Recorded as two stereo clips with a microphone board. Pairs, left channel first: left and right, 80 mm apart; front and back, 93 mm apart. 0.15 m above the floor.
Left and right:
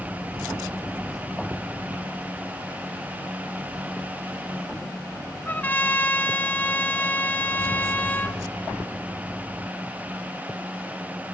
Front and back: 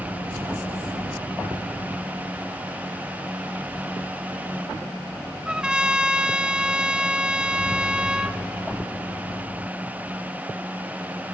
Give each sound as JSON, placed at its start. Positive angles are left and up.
{"t": 5.5, "sound": "a trumpet", "azimuth_deg": 115, "distance_m": 0.6}